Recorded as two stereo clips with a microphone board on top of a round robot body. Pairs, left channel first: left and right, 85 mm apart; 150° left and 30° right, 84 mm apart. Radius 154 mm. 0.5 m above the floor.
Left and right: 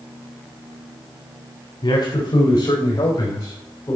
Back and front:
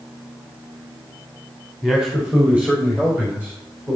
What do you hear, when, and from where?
1.8 s a man speaking: 55° left, 2.5 m; by 4.0 s 30° left, 4.5 m